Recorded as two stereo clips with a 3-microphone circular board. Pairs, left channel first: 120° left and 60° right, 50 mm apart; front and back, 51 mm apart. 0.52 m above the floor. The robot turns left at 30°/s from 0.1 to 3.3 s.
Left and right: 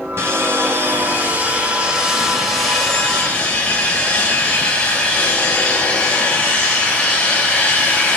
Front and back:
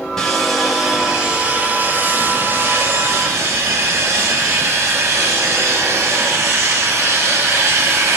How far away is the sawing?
About 3 m.